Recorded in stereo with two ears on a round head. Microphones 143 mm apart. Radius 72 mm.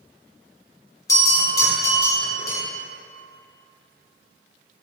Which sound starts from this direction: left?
A bell, at 1.1 s.